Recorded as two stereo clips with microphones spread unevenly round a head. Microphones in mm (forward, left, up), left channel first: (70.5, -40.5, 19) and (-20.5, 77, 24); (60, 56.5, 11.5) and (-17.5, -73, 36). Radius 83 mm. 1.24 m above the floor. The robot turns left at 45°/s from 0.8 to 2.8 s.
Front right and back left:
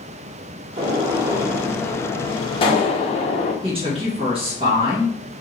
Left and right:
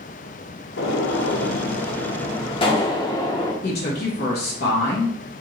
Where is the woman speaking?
75° left, 1.5 m.